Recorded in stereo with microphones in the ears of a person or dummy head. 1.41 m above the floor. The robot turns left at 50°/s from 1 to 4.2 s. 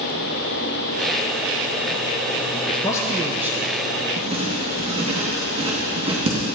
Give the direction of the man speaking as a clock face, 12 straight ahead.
11 o'clock.